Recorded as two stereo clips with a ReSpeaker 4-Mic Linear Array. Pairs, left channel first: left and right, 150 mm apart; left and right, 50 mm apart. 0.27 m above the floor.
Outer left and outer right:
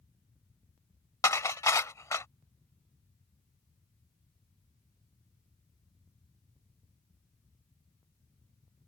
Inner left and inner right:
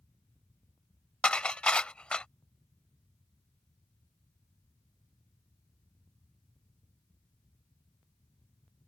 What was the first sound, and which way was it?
Dishes clattering, 20° left (ahead or behind).